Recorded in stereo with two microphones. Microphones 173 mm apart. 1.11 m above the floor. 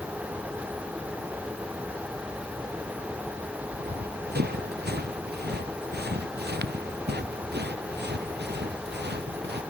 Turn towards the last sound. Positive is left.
turn(degrees=-80)